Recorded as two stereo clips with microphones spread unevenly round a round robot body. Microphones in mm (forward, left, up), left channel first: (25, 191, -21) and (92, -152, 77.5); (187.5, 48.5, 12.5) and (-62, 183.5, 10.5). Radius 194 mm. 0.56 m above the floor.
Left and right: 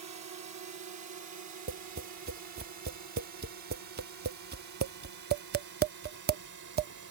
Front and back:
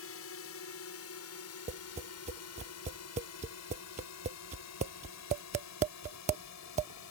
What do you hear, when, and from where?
0.0 s a drone: 35° right; by 7.1 s 40° right
1.7 s tapping: 150° right